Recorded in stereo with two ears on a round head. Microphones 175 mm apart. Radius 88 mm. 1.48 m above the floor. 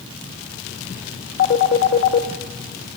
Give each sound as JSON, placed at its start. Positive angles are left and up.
{"t": 1.4, "sound": "a phone ringing", "side_deg": 50, "distance_m": 1.4}